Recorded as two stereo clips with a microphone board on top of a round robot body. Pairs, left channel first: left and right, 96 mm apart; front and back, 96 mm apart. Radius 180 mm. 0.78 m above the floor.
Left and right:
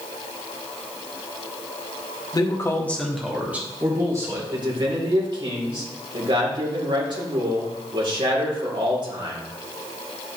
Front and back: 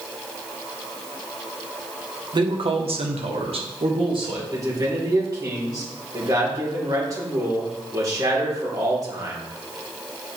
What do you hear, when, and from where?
2.3 s a man speaking: 140° left, 1.8 m; by 4.4 s 145° right, 3 m
4.5 s a man speaking: 125° right, 3 m